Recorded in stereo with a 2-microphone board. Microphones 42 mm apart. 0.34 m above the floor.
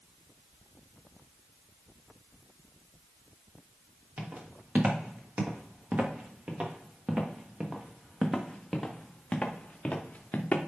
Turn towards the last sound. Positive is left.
turn(degrees=40)  # may be behind; listen again after turning